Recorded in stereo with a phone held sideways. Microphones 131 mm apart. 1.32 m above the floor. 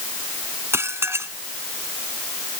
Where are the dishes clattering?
20° right (ahead or behind).